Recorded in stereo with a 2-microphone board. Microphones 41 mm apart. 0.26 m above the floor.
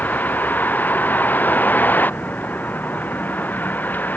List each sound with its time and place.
0.0 s a vehicle: 45° left (ahead or behind)